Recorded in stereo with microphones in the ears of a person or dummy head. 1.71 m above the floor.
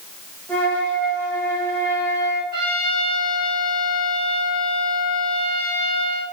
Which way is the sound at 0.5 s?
5° left (ahead or behind).